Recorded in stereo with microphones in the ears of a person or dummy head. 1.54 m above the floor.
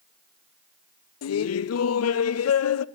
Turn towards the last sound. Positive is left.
turn(degrees=75)  # may be behind; listen again after turning